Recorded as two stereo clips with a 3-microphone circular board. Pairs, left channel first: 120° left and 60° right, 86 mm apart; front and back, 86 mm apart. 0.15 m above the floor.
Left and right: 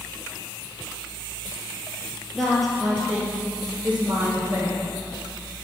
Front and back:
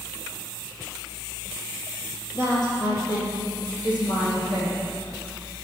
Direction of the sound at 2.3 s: 35° left.